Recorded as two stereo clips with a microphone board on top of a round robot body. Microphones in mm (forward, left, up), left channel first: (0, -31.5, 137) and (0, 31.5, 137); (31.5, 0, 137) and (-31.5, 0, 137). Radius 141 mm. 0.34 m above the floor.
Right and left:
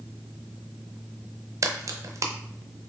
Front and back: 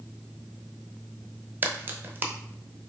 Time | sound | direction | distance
1.6 | a crack | 125° left | 0.7 m